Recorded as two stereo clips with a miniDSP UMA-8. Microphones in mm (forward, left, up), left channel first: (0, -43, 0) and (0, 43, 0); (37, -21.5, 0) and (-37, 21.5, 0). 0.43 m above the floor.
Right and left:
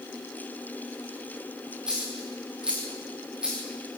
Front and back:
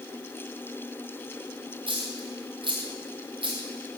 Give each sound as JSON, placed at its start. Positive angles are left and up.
{"t": 1.9, "sound": "a dropped coin", "azimuth_deg": 170, "distance_m": 4.5}